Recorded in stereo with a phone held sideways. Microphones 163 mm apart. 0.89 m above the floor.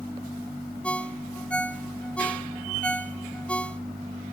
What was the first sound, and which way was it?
A ringtone, 10° left (ahead or behind).